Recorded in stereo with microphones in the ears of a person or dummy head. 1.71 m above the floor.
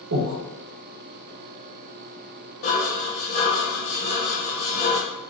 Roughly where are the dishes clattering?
Left.